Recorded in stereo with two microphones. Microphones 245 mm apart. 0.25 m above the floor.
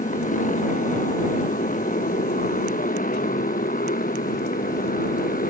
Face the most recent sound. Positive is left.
turn(degrees=35)  # may be behind; listen again after turning